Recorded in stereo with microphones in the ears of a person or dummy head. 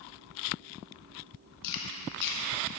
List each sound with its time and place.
1.6 s chewing: 60° left (ahead or behind), 1.3 m